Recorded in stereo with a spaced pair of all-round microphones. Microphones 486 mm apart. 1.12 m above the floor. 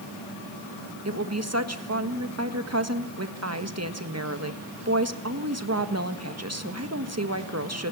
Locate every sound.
1.1 s a woman speaking: 30° right (ahead or behind), 1.5 m